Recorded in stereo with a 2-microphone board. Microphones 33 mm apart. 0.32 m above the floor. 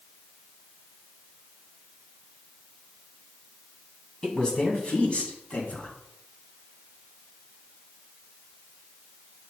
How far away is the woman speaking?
About 2 m.